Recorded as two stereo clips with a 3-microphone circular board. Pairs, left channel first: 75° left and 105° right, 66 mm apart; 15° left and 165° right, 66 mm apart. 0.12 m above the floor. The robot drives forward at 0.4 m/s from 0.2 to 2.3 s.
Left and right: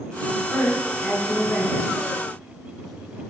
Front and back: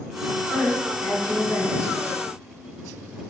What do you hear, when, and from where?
0.5 s a woman speaking: 65° left, 1.9 m; by 2.0 s 100° left, 1.9 m